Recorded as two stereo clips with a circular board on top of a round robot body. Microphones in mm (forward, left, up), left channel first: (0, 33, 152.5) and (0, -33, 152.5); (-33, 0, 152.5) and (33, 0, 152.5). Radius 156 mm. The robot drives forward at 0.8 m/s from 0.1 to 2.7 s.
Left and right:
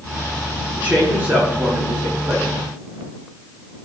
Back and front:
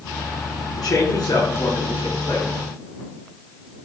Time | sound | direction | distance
0.8 | a man speaking | 155° right | 5.5 m